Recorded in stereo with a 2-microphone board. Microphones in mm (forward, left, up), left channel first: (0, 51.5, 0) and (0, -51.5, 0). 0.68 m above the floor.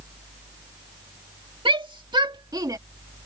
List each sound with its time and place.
1.6 s a shout: 55° right (ahead or behind); by 2.8 s 35° right (ahead or behind)